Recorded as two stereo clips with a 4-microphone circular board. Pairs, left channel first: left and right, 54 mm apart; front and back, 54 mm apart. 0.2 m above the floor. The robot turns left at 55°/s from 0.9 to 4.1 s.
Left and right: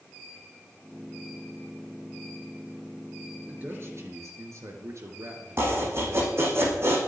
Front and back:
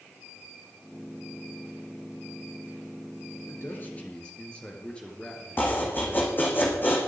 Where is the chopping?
50° right, 5 m.